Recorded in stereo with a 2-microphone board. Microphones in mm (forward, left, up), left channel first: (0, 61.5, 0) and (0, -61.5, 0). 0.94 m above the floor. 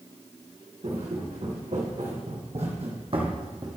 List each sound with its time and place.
0.8 s footsteps: 65° right (ahead or behind), 3 m; by 3.8 s 30° right (ahead or behind), 1.5 m